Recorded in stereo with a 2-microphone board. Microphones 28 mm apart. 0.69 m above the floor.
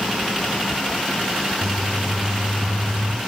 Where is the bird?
30° right (ahead or behind), 1.4 m.